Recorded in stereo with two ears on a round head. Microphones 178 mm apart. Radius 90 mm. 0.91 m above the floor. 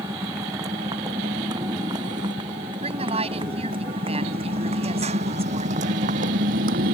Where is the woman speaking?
30° right (ahead or behind).